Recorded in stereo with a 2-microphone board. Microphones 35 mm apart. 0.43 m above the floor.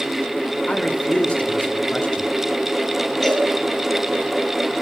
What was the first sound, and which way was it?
A man speaking, 40° left (ahead or behind).